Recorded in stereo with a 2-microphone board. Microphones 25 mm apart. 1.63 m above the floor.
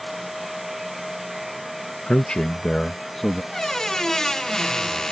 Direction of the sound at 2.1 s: 55° left (ahead or behind).